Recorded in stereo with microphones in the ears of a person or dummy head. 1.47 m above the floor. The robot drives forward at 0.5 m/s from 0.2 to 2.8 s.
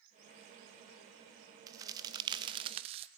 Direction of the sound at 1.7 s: 20° right (ahead or behind).